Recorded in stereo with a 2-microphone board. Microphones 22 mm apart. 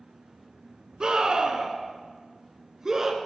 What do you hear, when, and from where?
1.0 s a scream: 40° right (ahead or behind), 2 m; by 3.2 s 25° right (ahead or behind), 2.5 m